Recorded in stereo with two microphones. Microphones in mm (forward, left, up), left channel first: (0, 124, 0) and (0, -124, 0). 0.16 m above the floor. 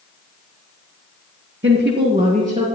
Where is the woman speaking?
50° right (ahead or behind), 2 m; by 2.6 s 25° right (ahead or behind), 3 m.